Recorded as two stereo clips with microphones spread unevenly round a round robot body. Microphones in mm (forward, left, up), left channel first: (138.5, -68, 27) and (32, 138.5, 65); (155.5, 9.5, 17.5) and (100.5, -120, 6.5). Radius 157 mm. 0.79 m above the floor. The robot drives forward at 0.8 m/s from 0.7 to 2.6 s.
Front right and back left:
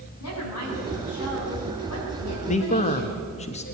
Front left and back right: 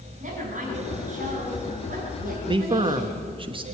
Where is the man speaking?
85° right, 1.0 m; by 3.6 s 95° right, 1.0 m.